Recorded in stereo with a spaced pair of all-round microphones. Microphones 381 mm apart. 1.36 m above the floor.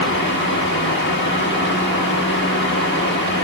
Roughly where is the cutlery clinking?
I don't hear cutlery clinking.